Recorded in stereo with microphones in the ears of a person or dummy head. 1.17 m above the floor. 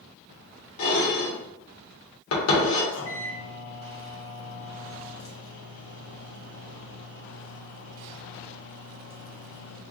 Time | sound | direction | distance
0.8 | dishes clattering | 75° left (ahead or behind) | 1.3 m
2.9 | a microwave | 70° left (ahead or behind) | 1.2 m